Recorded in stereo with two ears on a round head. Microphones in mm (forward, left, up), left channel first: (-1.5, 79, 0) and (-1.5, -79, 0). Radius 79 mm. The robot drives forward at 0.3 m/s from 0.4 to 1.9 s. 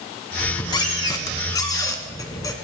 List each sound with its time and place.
0.4 s a squeak: 25° left (ahead or behind), 1.4 m; by 2.5 s 20° left (ahead or behind), 1.8 m